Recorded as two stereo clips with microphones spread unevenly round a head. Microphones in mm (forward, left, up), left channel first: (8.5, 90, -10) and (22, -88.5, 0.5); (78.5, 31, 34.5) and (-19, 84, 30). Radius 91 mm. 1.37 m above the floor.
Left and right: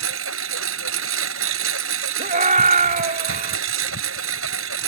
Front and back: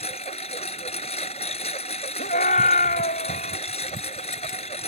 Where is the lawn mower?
85° right.